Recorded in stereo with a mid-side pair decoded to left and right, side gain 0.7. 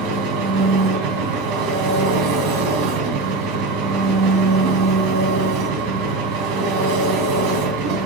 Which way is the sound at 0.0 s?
65° right.